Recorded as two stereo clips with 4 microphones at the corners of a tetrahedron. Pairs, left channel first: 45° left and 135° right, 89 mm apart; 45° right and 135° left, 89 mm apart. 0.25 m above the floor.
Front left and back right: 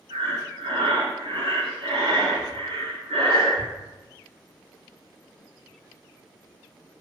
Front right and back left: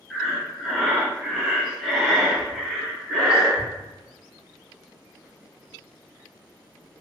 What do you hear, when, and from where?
0.1 s breathing: 135° right, 0.7 m